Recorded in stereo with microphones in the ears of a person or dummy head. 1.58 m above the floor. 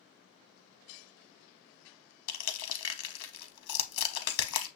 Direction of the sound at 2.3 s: 80° left.